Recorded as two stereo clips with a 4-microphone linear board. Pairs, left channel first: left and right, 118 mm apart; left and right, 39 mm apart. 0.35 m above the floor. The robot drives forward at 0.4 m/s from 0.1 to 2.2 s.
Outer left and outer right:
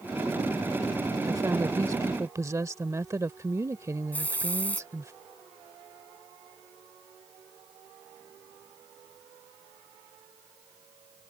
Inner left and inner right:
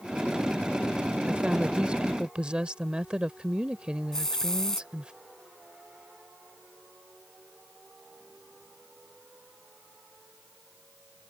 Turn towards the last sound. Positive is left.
turn(degrees=15)  # may be behind; listen again after turning